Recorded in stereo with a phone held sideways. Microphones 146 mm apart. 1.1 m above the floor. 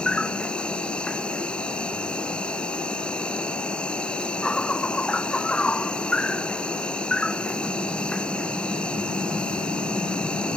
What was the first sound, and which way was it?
An insect, 5° left (ahead or behind).